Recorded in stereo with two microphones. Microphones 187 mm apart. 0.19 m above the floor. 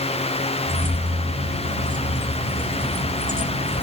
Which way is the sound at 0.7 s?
45° right (ahead or behind).